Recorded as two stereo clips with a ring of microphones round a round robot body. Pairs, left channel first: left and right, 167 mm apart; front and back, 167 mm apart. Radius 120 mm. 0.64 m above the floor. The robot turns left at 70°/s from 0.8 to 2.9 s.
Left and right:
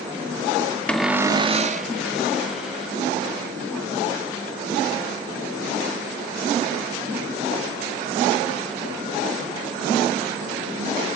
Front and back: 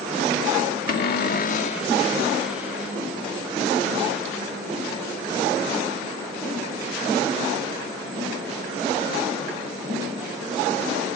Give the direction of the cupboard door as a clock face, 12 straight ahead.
12 o'clock.